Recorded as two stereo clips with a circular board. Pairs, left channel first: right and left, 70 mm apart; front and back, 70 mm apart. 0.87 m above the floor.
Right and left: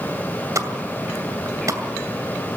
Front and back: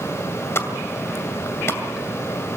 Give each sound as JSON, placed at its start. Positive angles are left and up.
{"t": 0.6, "sound": "a pop", "azimuth_deg": 50, "distance_m": 2.0}